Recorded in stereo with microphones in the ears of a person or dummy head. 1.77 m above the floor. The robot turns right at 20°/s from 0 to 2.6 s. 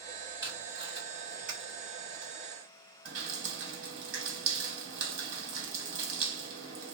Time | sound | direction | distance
0.4 | tape being pulled | 20° right (ahead or behind) | 1.6 m
3.0 | dripping | 65° right (ahead or behind) | 1.6 m